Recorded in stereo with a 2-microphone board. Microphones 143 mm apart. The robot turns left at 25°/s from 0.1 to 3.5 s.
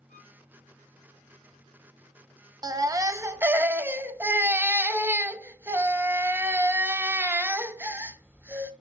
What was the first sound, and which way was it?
A violin, 75° left (ahead or behind).